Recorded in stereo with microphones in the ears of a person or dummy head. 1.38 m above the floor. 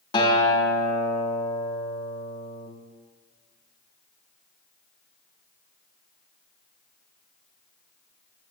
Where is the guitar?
30° left (ahead or behind), 1.4 m.